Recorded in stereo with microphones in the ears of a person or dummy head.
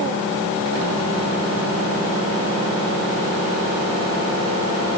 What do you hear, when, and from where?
Only background noise.